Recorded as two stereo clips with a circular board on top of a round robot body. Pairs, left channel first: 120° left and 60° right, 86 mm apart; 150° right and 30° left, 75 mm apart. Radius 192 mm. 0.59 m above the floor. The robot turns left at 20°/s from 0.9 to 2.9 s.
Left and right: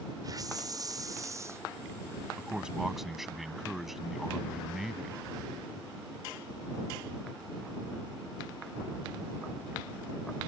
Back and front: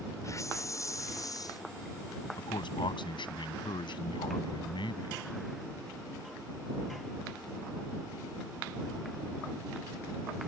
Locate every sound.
0.2 s a hiss: 105° right; by 1.6 s 120° right
2.4 s a man speaking: 135° right; by 5.2 s 150° right